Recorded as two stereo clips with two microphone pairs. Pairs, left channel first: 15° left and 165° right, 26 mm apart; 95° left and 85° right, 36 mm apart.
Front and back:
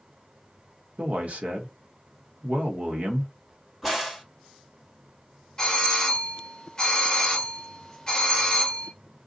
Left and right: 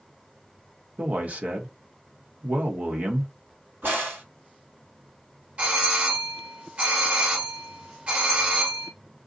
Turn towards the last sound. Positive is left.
turn(degrees=-45)